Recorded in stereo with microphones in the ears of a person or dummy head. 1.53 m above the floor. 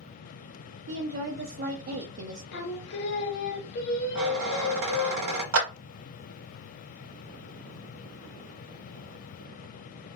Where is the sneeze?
No sneeze in this recording.